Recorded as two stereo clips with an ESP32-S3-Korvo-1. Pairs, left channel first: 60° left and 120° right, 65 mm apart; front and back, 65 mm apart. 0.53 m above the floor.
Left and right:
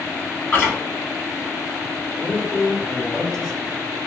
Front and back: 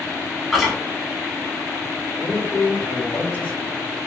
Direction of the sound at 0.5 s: 95° left.